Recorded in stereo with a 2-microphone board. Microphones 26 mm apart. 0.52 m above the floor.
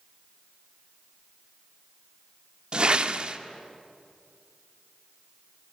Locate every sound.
2.7 s a whoosh: 35° right (ahead or behind), 0.5 m